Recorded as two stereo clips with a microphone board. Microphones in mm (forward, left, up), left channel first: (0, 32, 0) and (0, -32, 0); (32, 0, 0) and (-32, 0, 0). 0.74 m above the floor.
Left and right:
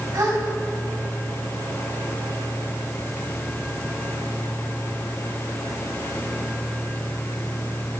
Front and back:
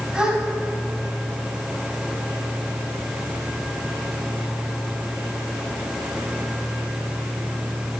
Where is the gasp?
105° right, 3 m.